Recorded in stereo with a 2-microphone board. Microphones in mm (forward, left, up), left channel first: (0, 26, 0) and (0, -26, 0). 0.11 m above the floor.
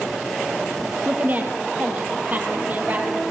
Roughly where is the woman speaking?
Right.